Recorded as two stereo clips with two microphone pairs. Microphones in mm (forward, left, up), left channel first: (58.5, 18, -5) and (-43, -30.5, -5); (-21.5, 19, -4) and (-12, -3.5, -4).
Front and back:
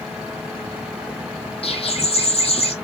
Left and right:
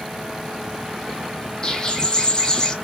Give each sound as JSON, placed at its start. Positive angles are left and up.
{"t": 1.6, "sound": "a bird", "azimuth_deg": 55, "distance_m": 0.9}